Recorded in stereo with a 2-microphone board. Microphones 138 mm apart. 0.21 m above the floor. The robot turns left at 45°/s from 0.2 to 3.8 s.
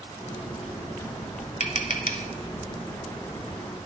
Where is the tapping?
60° left (ahead or behind), 0.5 m; by 2.3 s 80° left, 0.5 m.